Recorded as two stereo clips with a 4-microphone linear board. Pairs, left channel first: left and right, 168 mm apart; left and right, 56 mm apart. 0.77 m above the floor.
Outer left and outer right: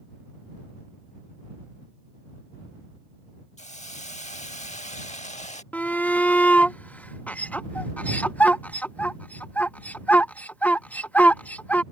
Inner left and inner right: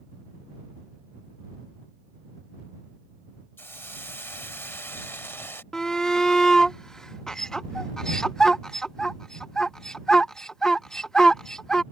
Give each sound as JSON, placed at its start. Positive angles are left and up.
{"t": 3.6, "sound": "a hiss", "side_deg": 45}
{"t": 5.7, "sound": "a shout", "side_deg": 10}